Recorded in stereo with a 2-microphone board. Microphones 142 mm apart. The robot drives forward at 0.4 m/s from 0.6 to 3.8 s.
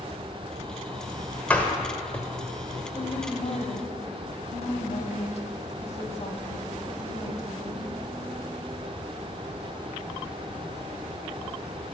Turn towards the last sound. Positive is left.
turn(degrees=50)  # may be behind; listen again after turning